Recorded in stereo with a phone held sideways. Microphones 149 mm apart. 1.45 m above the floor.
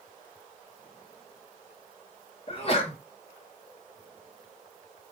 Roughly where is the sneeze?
Left.